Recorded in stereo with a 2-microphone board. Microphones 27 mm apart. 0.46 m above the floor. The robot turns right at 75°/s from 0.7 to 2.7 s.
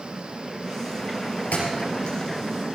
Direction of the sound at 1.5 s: 85° left.